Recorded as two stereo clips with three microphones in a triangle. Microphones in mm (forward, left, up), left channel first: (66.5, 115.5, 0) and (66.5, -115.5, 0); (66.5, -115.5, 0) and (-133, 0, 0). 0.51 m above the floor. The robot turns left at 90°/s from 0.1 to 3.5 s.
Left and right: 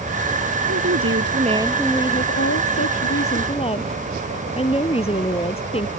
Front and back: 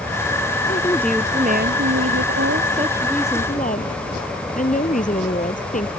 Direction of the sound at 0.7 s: 80° right.